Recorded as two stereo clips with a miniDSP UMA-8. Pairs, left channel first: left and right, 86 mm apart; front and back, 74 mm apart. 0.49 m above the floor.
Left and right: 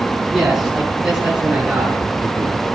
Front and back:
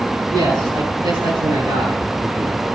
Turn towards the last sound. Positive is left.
turn(degrees=-165)